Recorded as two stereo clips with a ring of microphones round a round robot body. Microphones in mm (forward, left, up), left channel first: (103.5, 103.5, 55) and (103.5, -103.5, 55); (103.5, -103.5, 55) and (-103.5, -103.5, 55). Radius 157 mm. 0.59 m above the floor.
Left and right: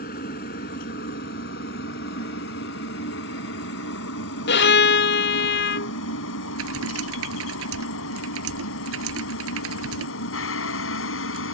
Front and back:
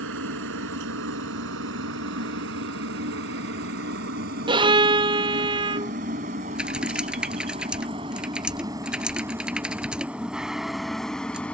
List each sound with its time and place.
0.0 s a helicopter: 145° left; by 11.6 s 85° left
4.5 s a violin: 110° left
6.5 s typing on a keyboard: 95° right